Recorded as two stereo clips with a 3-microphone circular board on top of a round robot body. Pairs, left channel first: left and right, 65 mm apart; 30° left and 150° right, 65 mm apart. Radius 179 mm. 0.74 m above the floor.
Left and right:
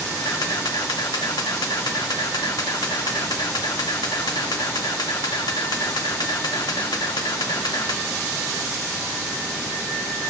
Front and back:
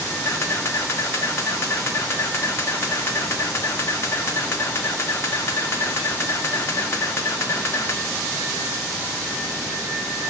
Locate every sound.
0.2 s a camera shutter: 80° left, 1.1 m